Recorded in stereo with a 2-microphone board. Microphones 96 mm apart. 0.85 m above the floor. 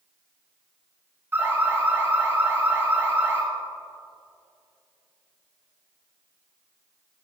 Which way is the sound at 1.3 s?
25° right (ahead or behind).